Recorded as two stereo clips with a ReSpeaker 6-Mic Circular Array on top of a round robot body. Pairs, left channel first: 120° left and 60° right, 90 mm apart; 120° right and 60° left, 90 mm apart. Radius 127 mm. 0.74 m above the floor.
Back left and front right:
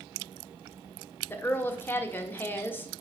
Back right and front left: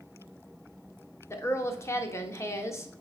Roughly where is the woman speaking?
Behind.